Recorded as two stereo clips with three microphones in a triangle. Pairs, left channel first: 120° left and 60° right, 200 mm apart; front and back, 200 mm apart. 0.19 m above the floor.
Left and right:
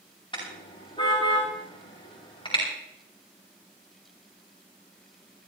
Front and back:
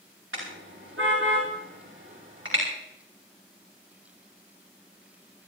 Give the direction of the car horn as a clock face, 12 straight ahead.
6 o'clock.